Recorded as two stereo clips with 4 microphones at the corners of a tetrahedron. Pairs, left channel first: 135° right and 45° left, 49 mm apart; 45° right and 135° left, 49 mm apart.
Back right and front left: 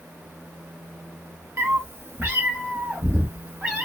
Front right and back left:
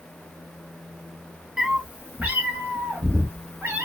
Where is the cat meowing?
60° left, 0.6 m; by 3.9 s 115° left, 1.4 m.